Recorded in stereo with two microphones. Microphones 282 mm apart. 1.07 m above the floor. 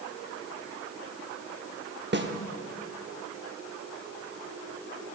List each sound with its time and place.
2.1 s a snare drum: 40° right (ahead or behind), 0.8 m